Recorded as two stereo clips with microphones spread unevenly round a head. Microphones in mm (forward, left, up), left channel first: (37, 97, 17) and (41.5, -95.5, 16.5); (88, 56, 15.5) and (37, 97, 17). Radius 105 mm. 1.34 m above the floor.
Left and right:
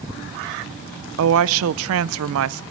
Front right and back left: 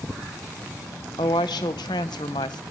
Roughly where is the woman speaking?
Right.